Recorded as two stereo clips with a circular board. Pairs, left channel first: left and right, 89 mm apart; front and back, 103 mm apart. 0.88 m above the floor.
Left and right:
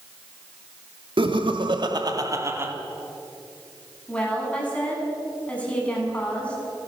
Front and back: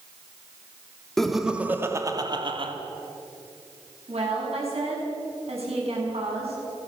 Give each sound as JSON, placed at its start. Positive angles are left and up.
{"t": 1.2, "sound": "laughter", "azimuth_deg": -85, "distance_m": 2.0}
{"t": 4.1, "sound": "a woman speaking", "azimuth_deg": 165, "distance_m": 7.5}